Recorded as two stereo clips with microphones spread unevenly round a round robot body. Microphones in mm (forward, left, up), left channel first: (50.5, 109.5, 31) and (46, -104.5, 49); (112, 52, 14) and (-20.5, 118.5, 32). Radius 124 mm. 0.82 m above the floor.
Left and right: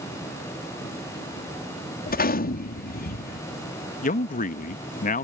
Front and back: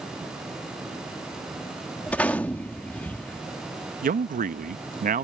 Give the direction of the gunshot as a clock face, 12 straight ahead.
10 o'clock.